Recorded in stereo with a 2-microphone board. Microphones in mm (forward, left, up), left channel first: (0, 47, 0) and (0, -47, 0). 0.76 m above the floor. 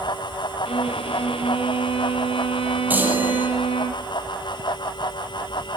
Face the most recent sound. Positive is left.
turn(degrees=-20)  # may be behind; listen again after turning